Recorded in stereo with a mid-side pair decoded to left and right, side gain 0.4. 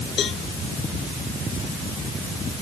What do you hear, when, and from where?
0.2 s a cowbell: 60° left